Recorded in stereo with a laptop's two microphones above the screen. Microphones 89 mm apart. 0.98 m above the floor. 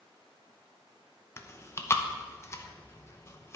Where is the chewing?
30° left (ahead or behind), 0.6 m.